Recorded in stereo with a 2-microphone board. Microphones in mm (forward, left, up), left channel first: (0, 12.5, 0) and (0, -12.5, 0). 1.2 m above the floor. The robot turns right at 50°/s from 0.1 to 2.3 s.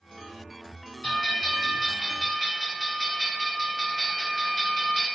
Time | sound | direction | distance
1.0 | a bell | 130° left | 1.0 m